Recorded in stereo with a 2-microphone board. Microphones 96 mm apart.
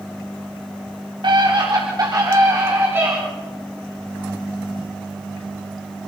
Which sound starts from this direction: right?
A scream, at 1.2 s.